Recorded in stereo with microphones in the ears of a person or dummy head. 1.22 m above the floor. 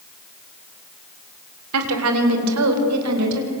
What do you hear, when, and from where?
1.7 s a woman speaking: 80° right, 3.5 m; by 3.5 s 85° right, 6 m